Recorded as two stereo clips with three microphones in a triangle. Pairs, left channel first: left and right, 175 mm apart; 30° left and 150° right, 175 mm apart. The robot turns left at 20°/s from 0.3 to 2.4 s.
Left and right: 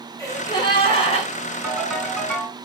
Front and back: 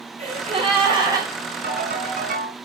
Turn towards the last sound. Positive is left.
turn(degrees=165)